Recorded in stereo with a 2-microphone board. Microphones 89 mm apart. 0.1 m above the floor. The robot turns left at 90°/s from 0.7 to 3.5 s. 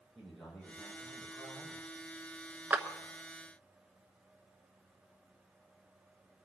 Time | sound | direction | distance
0.1 | a man speaking | 5° left | 5.5 m
2.7 | a clap | 20° right (ahead or behind) | 1.0 m